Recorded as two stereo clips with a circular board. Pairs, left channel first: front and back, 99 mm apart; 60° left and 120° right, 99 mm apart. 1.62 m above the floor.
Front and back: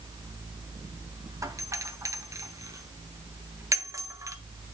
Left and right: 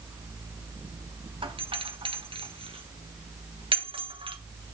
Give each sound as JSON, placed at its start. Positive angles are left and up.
{"t": 1.4, "sound": "a doorbell", "azimuth_deg": -125, "distance_m": 1.1}